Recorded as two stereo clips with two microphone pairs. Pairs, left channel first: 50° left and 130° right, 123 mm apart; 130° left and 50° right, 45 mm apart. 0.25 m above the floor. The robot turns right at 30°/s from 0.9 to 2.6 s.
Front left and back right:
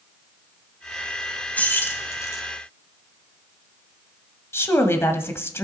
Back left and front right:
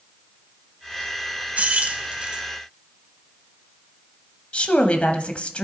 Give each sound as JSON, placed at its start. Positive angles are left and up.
{"t": 1.6, "sound": "keys jangling", "azimuth_deg": -20, "distance_m": 0.9}
{"t": 4.5, "sound": "a woman speaking", "azimuth_deg": 100, "distance_m": 1.1}